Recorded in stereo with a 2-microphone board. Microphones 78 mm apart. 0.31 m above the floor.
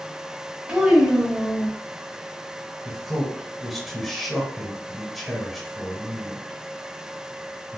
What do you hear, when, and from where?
0.7 s a child speaking: 15° right (ahead or behind), 1.3 m
2.9 s a man speaking: centre (ahead or behind), 1.2 m